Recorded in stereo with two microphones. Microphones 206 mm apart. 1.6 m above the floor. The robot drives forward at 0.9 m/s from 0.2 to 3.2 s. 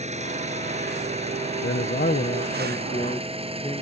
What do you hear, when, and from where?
0.0 s an engine running: 35° right (ahead or behind); by 3.8 s 30° right (ahead or behind)
1.6 s a man speaking: 65° left (ahead or behind); by 3.8 s 25° left (ahead or behind)